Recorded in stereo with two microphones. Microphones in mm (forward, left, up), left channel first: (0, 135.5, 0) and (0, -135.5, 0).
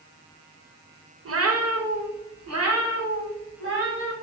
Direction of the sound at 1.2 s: 55° right (ahead or behind).